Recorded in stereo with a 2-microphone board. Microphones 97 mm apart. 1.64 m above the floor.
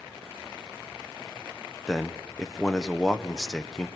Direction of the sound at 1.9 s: Centre (ahead or behind).